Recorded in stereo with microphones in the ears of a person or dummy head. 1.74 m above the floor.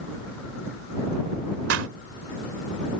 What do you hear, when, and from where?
1.7 s a clap: 70° right (ahead or behind)